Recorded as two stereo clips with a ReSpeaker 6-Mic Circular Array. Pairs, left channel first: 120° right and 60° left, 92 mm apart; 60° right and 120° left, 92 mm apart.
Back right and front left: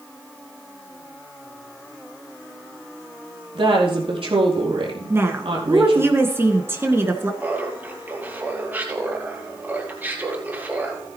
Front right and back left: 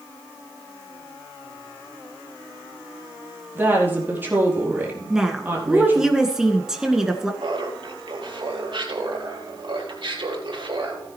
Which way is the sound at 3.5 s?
55° left.